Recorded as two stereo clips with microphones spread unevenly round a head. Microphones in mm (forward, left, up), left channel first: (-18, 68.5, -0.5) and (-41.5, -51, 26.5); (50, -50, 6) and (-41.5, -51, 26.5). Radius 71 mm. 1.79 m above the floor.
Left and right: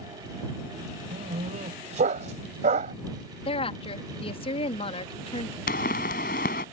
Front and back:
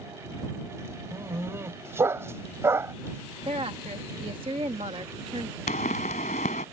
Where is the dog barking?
120° right.